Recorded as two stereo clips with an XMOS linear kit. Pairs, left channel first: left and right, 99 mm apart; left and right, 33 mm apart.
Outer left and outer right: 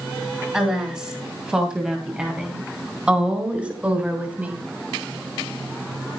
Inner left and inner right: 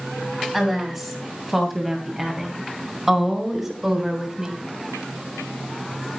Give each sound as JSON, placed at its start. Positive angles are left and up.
{"t": 0.5, "sound": "a woman speaking", "side_deg": -5, "distance_m": 8.0}